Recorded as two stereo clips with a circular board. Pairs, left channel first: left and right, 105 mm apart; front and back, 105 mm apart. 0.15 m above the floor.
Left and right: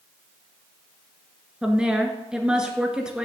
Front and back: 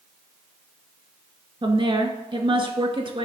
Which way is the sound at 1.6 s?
170° right.